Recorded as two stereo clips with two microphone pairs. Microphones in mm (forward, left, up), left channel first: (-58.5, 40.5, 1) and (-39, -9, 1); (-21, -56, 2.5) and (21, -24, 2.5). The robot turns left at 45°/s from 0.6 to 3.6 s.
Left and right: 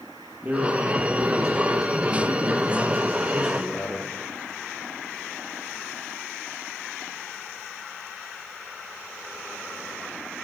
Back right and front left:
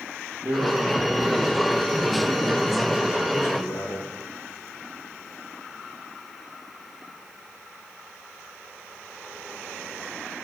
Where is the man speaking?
10° right, 6 m; by 4.1 s 145° right, 6 m.